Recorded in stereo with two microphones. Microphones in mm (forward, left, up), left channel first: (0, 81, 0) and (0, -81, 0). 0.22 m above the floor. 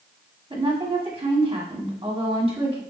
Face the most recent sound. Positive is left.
turn(degrees=-35)  # may be behind; listen again after turning